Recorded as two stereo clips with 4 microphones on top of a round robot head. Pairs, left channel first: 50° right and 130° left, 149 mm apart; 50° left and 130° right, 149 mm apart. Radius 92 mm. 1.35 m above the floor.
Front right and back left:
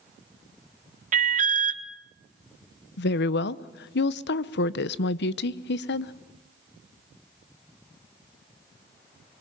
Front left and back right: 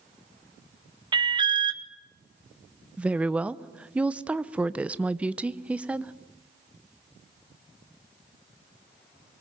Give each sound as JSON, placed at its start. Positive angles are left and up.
{"t": 1.1, "sound": "an alarm", "azimuth_deg": 170, "distance_m": 1.5}
{"t": 3.0, "sound": "a woman speaking", "azimuth_deg": -45, "distance_m": 0.7}